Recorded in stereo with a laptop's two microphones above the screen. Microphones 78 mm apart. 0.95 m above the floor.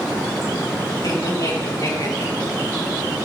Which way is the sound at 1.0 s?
60° left (ahead or behind).